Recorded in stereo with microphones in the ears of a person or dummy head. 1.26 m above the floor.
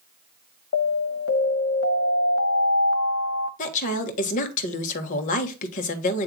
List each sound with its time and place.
0.7 s an alarm: 70° left (ahead or behind), 1.1 m
3.6 s a woman speaking: 45° left (ahead or behind), 1.5 m